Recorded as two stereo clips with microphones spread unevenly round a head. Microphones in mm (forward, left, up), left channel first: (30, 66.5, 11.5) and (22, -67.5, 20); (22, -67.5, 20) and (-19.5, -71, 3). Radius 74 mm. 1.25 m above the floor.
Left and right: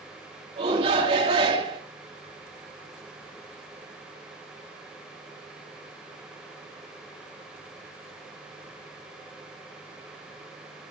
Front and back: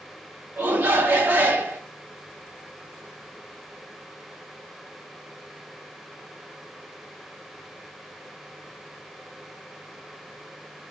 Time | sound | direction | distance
0.6 | a shout | 150° right | 2.5 m